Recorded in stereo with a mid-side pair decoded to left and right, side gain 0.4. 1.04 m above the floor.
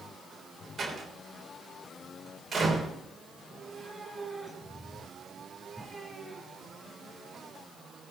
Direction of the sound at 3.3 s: 10° right.